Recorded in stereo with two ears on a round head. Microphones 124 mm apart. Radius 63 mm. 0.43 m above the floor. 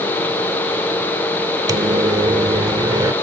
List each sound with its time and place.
1.7 s a microwave: 30° right (ahead or behind)